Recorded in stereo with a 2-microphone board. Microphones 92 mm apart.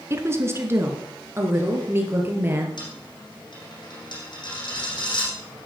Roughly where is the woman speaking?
Right.